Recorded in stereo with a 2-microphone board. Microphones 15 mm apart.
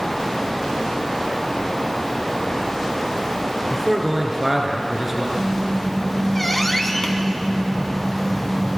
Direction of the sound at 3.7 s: 20° right (ahead or behind).